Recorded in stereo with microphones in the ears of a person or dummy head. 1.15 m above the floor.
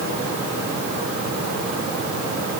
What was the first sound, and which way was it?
Only background noise.